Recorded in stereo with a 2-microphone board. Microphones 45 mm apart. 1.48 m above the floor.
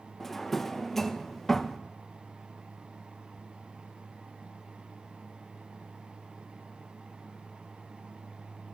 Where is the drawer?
5° left (ahead or behind), 0.6 m.